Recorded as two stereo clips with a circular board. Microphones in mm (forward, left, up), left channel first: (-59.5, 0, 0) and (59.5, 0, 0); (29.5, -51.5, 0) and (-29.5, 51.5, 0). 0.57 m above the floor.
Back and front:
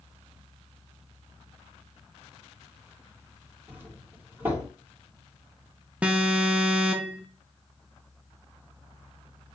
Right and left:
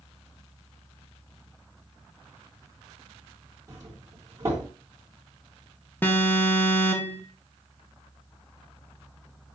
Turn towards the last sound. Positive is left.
turn(degrees=-55)